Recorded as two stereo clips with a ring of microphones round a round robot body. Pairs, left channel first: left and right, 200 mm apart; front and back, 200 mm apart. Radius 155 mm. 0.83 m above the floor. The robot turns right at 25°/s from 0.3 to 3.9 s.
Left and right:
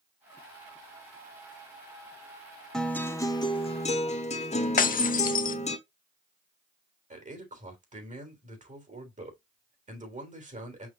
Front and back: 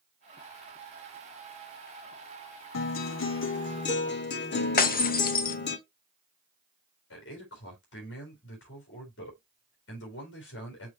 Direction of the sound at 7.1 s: 40° right.